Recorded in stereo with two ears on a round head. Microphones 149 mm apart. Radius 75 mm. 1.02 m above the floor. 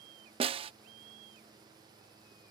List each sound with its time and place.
0.4 s a snare drum: 35° right (ahead or behind)